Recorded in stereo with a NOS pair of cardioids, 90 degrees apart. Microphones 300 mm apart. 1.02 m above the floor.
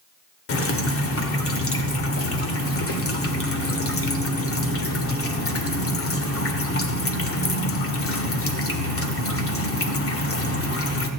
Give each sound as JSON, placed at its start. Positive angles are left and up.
{"t": 0.5, "sound": "dripping", "azimuth_deg": 50, "distance_m": 2.0}